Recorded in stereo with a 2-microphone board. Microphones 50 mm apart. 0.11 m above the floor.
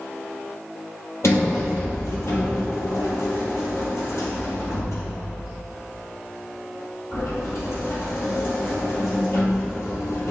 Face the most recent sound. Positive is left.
turn(degrees=65)  # may be behind; listen again after turning